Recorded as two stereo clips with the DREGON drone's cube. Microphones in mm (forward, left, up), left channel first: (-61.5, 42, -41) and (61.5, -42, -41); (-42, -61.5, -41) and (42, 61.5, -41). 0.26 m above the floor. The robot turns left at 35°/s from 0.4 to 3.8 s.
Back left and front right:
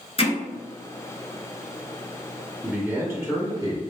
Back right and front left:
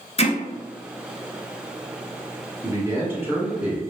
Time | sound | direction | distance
0.2 | hammering | 170° right | 0.8 m
2.6 | a man speaking | 25° left | 1.2 m